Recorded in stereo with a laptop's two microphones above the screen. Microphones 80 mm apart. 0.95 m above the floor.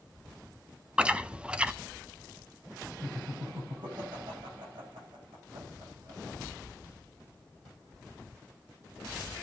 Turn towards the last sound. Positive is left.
turn(degrees=-80)